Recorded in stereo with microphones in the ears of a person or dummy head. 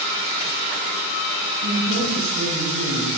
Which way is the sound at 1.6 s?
80° right.